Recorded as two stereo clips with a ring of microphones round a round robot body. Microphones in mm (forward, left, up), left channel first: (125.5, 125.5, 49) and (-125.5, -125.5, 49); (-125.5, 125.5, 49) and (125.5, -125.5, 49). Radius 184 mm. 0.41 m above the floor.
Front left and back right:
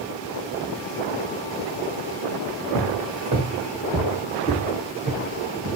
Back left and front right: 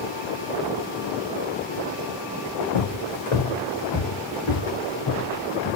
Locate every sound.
2.7 s footsteps: 145° left, 1.7 m; by 5.8 s 150° left, 3 m